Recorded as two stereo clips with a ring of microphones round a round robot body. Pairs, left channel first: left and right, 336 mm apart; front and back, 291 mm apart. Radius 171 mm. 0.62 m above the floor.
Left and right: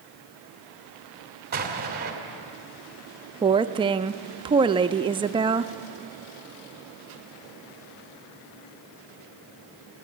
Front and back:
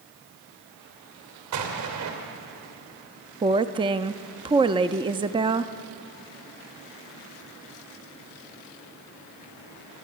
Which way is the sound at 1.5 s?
150° right.